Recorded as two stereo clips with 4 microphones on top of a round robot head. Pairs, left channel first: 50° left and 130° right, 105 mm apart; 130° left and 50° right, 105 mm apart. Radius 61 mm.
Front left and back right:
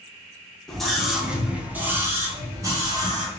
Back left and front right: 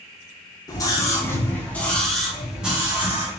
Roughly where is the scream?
Behind left.